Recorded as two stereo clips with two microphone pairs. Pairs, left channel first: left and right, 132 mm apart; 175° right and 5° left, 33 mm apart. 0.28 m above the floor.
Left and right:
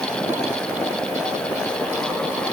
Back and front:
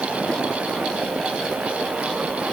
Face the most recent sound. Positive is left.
No sound to turn to.